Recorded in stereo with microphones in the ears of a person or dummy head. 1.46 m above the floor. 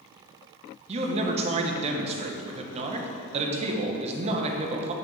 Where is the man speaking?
30° right (ahead or behind), 1.3 m.